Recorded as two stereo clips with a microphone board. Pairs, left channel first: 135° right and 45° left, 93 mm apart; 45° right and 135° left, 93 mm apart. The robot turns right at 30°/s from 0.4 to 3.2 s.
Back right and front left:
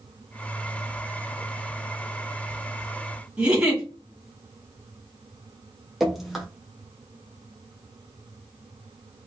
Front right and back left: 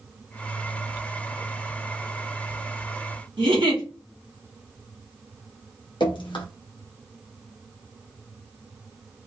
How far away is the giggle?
About 1.1 m.